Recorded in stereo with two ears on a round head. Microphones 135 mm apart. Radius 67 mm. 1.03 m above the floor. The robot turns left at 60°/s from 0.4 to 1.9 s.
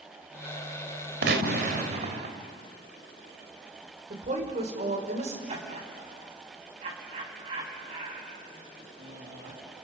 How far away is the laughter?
About 7 m.